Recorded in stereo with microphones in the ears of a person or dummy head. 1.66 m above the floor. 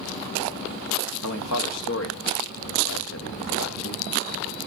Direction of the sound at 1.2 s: 85° left.